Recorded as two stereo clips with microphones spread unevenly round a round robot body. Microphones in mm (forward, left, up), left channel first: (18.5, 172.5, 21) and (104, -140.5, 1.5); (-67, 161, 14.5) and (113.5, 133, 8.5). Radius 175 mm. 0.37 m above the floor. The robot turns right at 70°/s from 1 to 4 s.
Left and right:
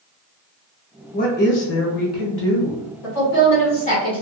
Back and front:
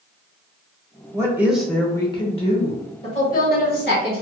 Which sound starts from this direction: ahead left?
A woman speaking, at 1.1 s.